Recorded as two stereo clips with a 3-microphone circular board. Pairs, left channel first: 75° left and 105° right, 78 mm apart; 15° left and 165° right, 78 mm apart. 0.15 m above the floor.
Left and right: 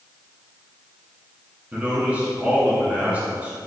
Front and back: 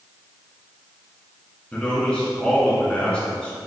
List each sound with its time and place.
1.7 s a man speaking: 50° right, 1.5 m